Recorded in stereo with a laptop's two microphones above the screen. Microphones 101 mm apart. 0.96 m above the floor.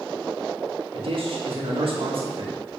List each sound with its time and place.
0.9 s a man speaking: 60° right (ahead or behind), 1.6 m